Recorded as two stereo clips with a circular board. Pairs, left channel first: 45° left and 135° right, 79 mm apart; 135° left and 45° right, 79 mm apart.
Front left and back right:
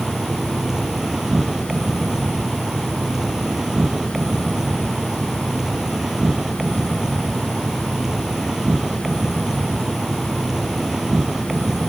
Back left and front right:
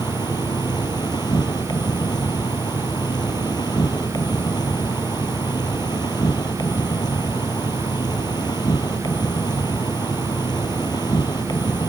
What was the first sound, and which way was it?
An insect, 140° left.